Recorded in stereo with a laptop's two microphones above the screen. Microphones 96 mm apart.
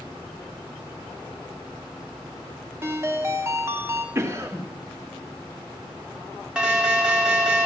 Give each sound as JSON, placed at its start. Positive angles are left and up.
{"t": 2.8, "sound": "a ringtone", "side_deg": -30, "distance_m": 1.5}
{"t": 4.2, "sound": "a cough", "side_deg": -30, "distance_m": 1.6}
{"t": 6.5, "sound": "an alarm", "side_deg": -10, "distance_m": 1.5}